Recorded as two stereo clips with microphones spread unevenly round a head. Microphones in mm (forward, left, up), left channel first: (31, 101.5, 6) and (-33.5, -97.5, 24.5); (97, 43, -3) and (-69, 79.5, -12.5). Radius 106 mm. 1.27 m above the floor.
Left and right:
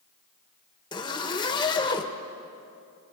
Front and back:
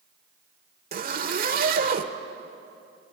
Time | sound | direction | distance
0.9 | a zipper | 140° left | 1.5 m